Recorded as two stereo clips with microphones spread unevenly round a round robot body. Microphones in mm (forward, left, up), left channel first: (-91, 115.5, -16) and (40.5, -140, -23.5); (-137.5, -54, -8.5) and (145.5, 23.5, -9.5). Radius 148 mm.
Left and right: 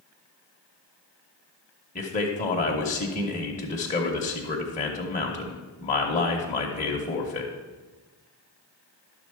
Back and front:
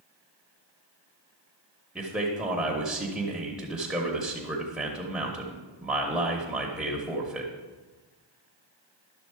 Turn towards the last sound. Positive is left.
turn(degrees=100)